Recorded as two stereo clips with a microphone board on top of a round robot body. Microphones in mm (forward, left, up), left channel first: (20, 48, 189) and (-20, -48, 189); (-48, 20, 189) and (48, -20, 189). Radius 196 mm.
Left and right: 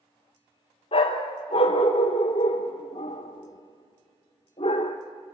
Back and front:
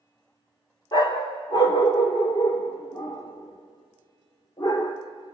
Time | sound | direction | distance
0.9 | a dog barking | 100° left | 0.7 m